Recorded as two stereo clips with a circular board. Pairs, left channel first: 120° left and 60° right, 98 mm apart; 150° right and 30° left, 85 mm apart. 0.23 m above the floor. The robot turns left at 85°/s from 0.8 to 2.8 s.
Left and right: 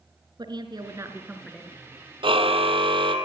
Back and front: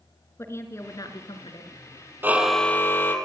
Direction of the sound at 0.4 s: 95° right.